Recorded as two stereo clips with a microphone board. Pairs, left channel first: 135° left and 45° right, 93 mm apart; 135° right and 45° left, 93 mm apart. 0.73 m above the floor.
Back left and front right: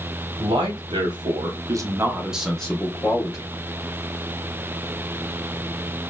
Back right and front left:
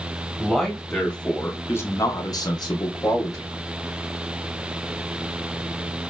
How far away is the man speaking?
About 1.1 m.